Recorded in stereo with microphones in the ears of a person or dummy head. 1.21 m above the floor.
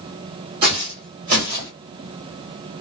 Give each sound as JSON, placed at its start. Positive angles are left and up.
{"t": 0.6, "sound": "footsteps", "side_deg": -30, "distance_m": 1.5}